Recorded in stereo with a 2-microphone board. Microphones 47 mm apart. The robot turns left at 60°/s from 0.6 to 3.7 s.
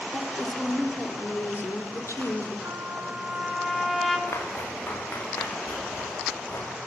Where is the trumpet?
120° right, 4 m; by 4.2 s 175° left, 4 m.